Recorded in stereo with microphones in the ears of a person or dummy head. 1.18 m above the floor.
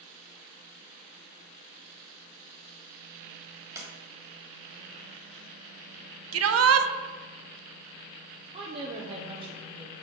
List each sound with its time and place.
3.8 s a sliding door: 15° right (ahead or behind), 1.5 m
6.3 s a shout: 75° right (ahead or behind), 0.7 m
8.5 s a woman speaking: 30° right (ahead or behind), 0.7 m